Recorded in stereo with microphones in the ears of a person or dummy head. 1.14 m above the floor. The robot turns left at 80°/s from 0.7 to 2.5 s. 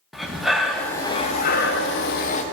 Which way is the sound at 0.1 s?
Straight behind.